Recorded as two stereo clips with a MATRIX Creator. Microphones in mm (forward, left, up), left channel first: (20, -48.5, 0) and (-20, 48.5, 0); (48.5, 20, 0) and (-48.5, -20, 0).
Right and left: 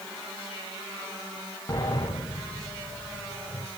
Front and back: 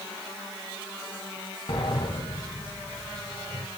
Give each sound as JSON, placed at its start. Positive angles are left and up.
{"t": 1.7, "sound": "a sliding door", "azimuth_deg": -10, "distance_m": 7.0}